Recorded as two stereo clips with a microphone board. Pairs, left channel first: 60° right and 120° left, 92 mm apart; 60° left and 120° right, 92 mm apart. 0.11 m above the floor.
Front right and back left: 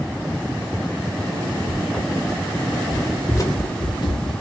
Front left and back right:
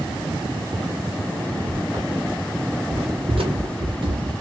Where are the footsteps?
155° right, 1.9 m; by 4.3 s 80° right, 1.2 m.